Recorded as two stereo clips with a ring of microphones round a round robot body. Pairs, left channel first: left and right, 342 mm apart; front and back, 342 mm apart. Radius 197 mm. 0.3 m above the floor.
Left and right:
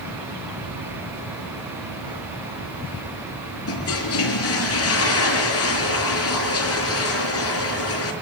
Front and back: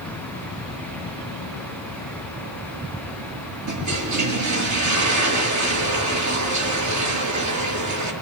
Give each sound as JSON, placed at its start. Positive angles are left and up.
{"t": 3.7, "sound": "a toilet flushing", "azimuth_deg": 140, "distance_m": 6.0}